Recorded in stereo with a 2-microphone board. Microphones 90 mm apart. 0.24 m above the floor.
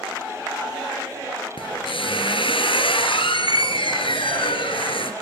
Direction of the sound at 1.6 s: 75° left (ahead or behind).